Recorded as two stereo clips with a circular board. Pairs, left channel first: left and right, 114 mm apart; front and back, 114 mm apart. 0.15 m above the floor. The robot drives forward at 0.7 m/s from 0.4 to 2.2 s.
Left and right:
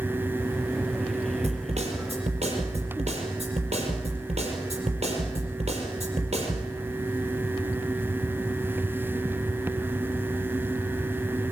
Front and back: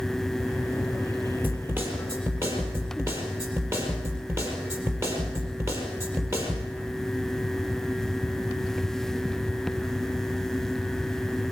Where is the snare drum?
110° right, 5 m; by 6.7 s 115° right, 5 m.